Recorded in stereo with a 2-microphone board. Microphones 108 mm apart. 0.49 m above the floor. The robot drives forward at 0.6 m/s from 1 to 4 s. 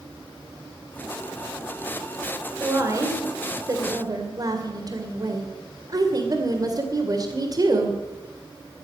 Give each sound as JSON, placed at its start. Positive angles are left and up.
{"t": 2.6, "sound": "a woman speaking", "side_deg": -30, "distance_m": 2.5}